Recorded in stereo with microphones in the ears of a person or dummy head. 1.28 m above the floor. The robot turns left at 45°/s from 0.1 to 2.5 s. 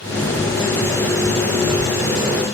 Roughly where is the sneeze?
No sneeze in this recording.